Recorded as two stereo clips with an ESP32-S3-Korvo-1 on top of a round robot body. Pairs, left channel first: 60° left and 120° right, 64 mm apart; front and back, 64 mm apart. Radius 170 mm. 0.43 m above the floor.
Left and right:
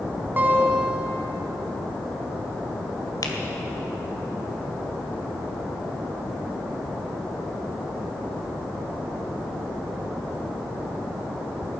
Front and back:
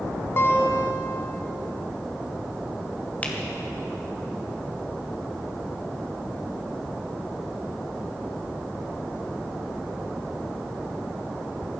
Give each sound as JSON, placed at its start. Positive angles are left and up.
{"t": 0.4, "sound": "a guitar", "azimuth_deg": -60, "distance_m": 1.2}
{"t": 3.2, "sound": "a finger snap", "azimuth_deg": 65, "distance_m": 1.9}